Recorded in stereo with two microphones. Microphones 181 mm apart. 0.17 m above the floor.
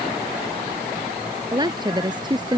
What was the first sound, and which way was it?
A woman speaking, 25° right (ahead or behind).